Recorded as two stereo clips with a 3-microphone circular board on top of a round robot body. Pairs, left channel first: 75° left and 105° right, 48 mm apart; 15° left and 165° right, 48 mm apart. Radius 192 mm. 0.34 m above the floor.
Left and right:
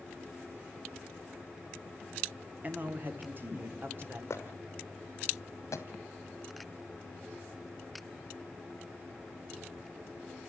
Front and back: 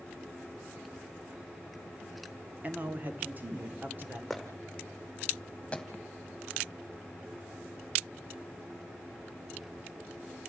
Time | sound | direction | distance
2.6 | a man speaking | 130° right | 1.7 m
4.3 | footsteps | 105° left | 2.0 m